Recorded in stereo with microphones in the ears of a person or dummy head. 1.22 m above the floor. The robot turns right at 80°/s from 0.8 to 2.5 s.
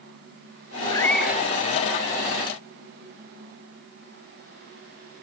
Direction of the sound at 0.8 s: 160° left.